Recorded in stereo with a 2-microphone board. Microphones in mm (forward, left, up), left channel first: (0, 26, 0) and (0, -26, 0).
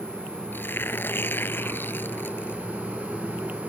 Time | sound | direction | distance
0.5 | tearing paper | 40° left (ahead or behind) | ?